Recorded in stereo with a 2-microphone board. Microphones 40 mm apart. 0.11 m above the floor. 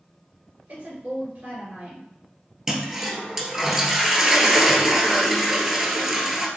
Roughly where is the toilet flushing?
Centre.